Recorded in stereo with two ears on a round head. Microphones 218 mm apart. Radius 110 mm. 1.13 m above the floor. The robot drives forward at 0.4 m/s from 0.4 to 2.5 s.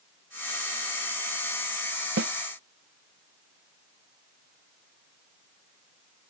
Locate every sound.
2.2 s a snare drum: 45° right (ahead or behind)